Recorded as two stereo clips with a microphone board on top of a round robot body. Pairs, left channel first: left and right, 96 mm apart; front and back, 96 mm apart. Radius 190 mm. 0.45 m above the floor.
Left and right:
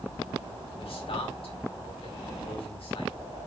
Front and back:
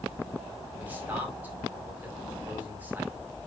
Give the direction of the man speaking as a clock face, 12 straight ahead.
8 o'clock.